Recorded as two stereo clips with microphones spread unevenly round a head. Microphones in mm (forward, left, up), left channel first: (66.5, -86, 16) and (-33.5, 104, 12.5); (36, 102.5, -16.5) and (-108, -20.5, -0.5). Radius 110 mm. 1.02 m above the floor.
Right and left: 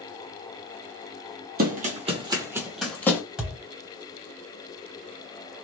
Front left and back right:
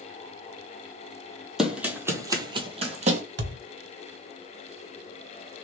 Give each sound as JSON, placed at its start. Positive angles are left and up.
{"t": 1.6, "sound": "running footsteps", "azimuth_deg": 140, "distance_m": 1.3}
{"t": 3.4, "sound": "a thud", "azimuth_deg": -155, "distance_m": 1.0}